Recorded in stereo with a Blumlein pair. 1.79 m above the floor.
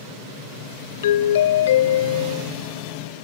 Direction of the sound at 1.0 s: 60° left.